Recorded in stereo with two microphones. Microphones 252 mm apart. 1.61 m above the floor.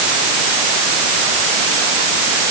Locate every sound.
Only background noise.